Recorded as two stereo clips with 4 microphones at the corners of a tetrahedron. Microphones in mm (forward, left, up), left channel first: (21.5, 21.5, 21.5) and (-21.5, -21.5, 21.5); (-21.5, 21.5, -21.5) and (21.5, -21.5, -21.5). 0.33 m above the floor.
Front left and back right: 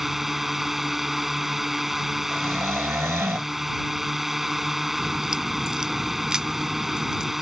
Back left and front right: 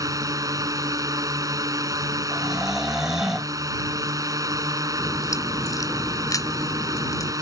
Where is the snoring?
125° right.